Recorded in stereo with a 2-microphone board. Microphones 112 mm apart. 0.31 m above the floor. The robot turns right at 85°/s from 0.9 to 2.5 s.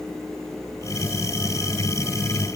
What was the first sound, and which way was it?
Only background noise.